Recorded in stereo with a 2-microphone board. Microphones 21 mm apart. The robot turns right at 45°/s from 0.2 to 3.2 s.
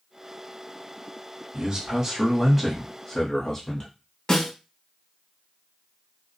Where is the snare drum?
25° left (ahead or behind), 1.4 m.